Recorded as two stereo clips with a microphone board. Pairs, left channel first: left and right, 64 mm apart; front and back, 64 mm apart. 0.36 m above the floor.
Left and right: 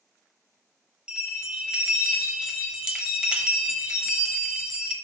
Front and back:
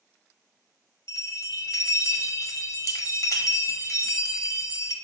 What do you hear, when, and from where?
1.1 s a bell: 15° right, 0.6 m